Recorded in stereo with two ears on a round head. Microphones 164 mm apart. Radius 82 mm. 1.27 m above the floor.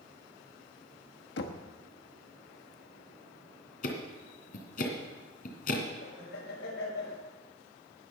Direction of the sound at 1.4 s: 65° left (ahead or behind).